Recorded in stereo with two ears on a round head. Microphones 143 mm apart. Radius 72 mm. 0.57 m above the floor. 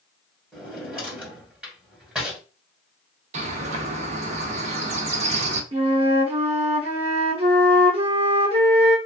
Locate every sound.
0.5 s a drawer: 5° right (ahead or behind), 1.9 m
3.3 s a bird: 45° right (ahead or behind), 0.7 m
5.7 s a flute: 40° right (ahead or behind), 0.9 m